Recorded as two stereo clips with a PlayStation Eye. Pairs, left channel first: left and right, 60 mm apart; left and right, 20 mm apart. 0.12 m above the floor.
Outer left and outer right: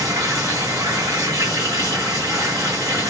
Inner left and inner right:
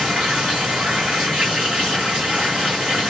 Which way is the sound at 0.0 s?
80° right.